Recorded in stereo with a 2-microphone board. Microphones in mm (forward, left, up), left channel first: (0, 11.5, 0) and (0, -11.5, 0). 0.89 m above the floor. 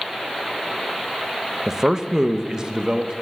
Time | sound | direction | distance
1.7 | a man speaking | 20° right (ahead or behind) | 0.7 m